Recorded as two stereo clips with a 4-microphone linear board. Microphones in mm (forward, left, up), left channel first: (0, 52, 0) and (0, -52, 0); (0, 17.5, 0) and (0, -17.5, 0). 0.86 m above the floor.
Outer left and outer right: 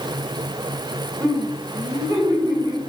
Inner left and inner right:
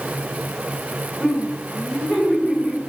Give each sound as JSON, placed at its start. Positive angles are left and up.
{"t": 1.2, "sound": "laughter", "side_deg": -20, "distance_m": 3.0}